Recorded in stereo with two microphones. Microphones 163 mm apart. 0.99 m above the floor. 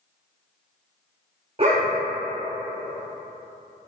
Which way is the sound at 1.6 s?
35° right (ahead or behind).